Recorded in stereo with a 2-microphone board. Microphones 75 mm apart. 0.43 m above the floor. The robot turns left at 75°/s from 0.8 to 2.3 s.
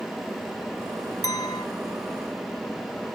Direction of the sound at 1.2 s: 120° left.